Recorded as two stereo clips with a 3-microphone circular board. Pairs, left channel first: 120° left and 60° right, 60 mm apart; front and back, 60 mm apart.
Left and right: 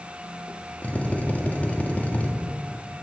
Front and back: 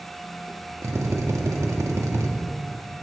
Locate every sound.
0.8 s a drill: straight behind, 1.2 m